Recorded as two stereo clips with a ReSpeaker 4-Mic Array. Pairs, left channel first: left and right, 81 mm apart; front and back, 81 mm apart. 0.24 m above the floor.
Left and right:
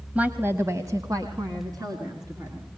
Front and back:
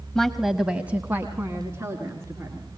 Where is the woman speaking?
65° right, 0.9 m; by 2.7 s 125° right, 3 m.